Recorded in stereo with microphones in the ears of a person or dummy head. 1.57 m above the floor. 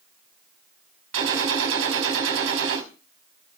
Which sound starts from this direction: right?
A gunshot, at 1.1 s.